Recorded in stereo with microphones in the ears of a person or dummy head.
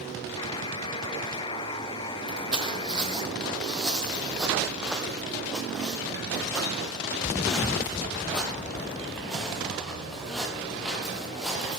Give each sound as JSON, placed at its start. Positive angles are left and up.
{"t": 0.4, "sound": "a buzzer", "side_deg": 25, "distance_m": 1.0}
{"t": 2.3, "sound": "footsteps", "side_deg": -5, "distance_m": 2.0}